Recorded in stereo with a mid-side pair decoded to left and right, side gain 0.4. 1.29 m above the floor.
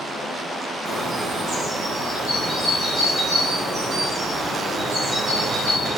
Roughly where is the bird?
Ahead right.